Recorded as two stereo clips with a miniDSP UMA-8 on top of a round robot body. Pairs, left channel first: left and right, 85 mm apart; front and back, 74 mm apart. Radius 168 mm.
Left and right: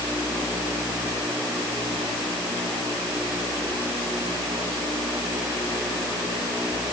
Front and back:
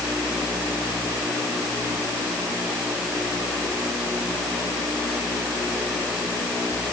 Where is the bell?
I don't hear a bell.